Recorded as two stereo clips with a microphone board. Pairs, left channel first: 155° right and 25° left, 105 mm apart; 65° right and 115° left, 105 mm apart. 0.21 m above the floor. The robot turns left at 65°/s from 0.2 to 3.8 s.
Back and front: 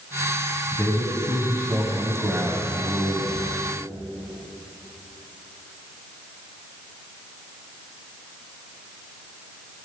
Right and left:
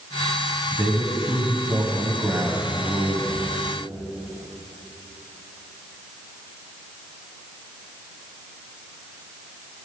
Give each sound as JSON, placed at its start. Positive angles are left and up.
{"t": 0.7, "sound": "a man speaking", "azimuth_deg": -170, "distance_m": 1.2}